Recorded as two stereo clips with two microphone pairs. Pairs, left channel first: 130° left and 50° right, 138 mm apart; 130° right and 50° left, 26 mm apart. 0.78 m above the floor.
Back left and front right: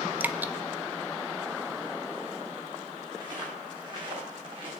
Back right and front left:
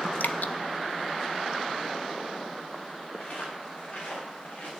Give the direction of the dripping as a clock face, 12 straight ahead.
4 o'clock.